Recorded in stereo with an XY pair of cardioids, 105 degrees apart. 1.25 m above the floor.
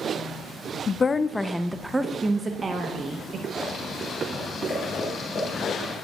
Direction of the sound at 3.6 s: 45° left.